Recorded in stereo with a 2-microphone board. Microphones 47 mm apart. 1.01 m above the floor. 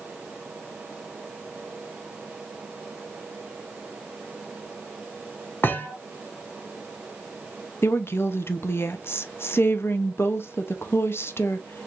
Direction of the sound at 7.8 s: 60° left (ahead or behind).